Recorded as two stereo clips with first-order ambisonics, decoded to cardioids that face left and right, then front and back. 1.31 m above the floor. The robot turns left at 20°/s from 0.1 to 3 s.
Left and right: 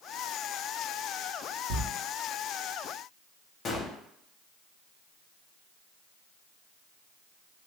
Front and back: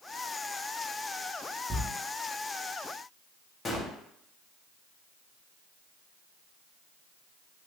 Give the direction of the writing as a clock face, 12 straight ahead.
3 o'clock.